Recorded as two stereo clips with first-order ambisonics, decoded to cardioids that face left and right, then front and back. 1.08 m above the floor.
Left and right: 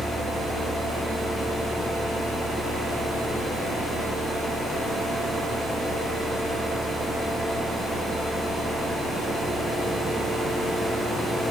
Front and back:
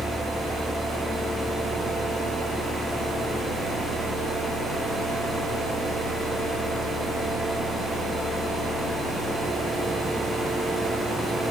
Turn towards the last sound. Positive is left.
No sound to turn to.